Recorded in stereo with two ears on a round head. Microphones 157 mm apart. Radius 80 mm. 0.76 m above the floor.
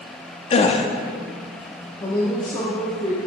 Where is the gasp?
35° left (ahead or behind), 0.7 m.